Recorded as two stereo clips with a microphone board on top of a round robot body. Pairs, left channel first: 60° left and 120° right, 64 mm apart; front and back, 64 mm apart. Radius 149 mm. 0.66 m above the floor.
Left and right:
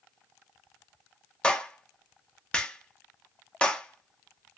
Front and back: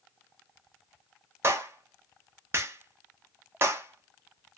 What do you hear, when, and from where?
1.4 s a clap: 135° left, 1.1 m